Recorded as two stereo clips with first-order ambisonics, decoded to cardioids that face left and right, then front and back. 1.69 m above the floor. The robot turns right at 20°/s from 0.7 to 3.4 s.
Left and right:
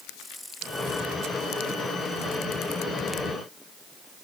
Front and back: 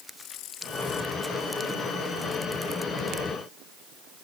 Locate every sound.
Only background noise.